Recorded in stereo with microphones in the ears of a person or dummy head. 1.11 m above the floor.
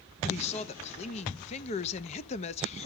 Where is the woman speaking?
35° left (ahead or behind), 0.8 m.